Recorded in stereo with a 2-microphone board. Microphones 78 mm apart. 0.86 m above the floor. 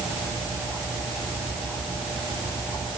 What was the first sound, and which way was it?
Only background noise.